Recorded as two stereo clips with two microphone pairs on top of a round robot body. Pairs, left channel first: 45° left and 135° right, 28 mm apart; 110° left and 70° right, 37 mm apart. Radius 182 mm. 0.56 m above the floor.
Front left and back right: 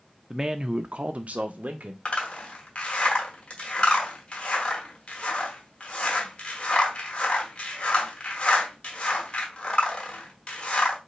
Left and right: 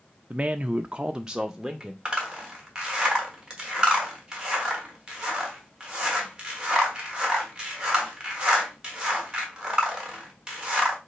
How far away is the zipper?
About 1.3 m.